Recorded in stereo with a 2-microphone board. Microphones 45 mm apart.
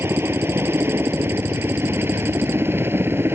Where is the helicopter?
65° right (ahead or behind); by 3.4 s 60° right (ahead or behind).